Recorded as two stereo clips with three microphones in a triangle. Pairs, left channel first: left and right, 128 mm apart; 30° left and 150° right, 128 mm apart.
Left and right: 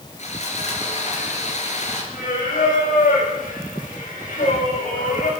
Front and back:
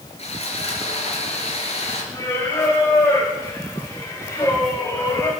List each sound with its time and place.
0.2 s sawing: 65° left, 3.5 m
2.1 s singing: 100° left, 7 m